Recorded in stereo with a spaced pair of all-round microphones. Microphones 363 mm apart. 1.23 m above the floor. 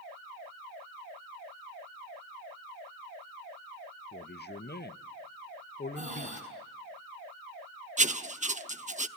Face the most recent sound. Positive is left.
turn(degrees=-20)  # may be behind; listen again after turning